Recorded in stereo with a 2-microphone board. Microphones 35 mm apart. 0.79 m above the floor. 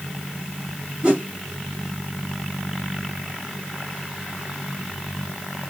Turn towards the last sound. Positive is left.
turn(degrees=-25)  # may be behind; listen again after turning